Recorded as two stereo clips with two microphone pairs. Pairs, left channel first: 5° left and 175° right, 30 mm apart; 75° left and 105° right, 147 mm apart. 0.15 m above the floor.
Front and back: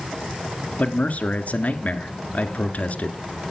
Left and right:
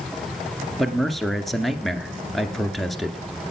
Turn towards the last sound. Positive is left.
turn(degrees=-15)